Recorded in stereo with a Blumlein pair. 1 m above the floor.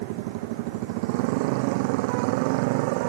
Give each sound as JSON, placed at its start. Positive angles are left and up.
{"t": 0.0, "sound": "a motorcycle", "azimuth_deg": -45}